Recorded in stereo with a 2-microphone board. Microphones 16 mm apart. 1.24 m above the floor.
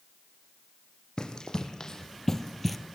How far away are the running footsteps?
About 3 m.